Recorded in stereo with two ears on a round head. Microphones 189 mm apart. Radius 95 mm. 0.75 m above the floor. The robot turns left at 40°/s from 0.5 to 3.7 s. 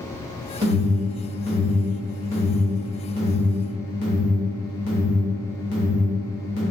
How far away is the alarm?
About 1.3 m.